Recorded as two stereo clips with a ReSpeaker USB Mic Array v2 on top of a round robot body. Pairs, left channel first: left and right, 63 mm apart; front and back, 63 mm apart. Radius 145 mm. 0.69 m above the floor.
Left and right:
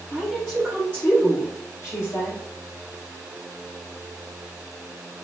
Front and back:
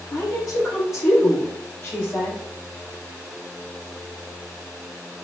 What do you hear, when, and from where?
0.1 s a woman speaking: 10° right, 1.5 m; by 2.4 s 60° left, 1.9 m